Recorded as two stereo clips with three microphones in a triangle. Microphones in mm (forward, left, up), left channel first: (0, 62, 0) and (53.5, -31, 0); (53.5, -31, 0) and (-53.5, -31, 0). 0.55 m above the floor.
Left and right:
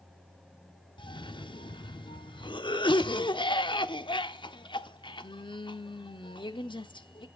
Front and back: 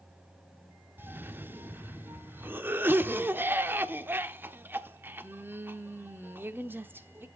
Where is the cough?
115° left, 1.0 m.